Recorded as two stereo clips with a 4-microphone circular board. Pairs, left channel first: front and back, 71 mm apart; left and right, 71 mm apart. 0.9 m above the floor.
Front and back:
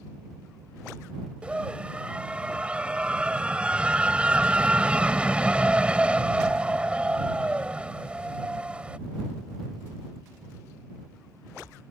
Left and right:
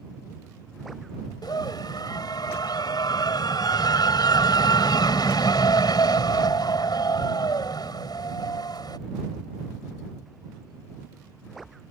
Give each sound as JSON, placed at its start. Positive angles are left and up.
{"t": 1.4, "sound": "a scream", "azimuth_deg": 105}